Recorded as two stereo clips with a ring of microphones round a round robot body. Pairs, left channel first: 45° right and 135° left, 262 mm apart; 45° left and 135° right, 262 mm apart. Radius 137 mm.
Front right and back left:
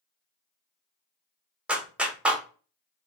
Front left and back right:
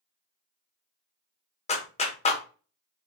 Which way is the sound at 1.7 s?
55° left.